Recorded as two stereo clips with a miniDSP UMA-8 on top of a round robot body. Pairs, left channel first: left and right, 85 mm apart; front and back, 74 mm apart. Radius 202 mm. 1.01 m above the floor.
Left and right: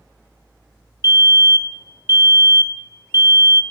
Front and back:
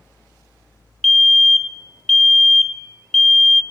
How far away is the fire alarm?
About 1.1 m.